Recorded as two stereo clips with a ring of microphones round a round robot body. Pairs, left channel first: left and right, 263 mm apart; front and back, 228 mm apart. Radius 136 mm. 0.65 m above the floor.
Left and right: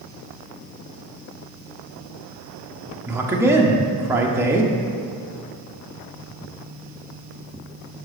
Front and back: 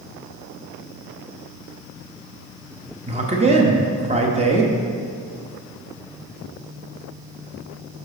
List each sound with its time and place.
3.1 s a man speaking: 160° right, 0.9 m